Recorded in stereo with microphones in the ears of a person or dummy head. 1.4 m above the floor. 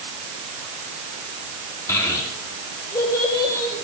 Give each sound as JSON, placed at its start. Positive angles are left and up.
{"t": 1.9, "sound": "a child speaking", "side_deg": 20, "distance_m": 1.2}